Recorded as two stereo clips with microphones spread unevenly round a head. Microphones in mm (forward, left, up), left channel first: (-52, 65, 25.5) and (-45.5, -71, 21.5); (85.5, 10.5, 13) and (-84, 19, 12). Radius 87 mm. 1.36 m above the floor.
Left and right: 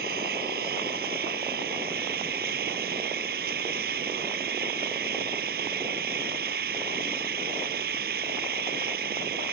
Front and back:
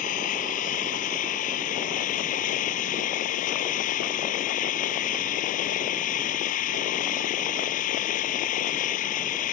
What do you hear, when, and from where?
0.0 s an engine running: 50° right